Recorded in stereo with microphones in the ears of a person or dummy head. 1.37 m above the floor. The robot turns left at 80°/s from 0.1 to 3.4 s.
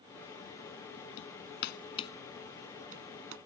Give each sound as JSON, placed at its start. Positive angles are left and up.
{"t": 1.2, "sound": "hammering", "side_deg": 80}